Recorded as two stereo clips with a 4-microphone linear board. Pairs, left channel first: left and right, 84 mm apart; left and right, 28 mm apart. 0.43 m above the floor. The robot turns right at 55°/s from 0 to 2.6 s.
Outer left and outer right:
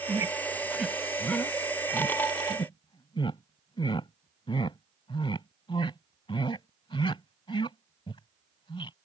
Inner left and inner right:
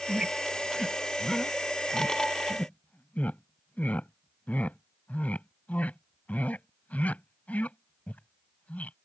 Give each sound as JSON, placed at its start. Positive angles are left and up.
{"t": 0.1, "sound": "a squeak", "side_deg": -50}